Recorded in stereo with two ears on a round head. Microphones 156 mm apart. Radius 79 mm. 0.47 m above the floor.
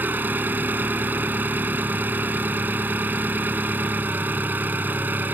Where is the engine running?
10° right (ahead or behind).